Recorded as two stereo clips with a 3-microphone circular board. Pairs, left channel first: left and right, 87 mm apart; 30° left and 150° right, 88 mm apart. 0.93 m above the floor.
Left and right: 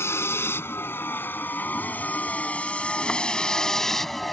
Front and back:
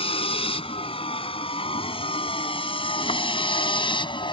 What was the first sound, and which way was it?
A vehicle, 25° left.